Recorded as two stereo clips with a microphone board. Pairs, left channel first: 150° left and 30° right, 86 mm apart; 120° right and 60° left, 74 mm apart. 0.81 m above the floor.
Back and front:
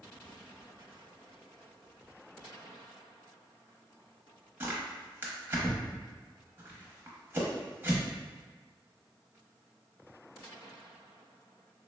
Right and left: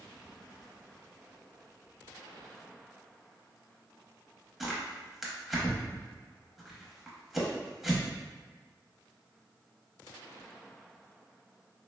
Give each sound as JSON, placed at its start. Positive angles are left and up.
{"t": 4.6, "sound": "tearing paper", "azimuth_deg": -20, "distance_m": 0.6}